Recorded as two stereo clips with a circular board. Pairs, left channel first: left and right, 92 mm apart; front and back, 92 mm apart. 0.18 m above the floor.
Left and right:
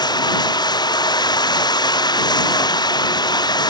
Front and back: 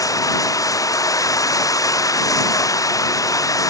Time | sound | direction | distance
0.0 | running water | 50° left | ?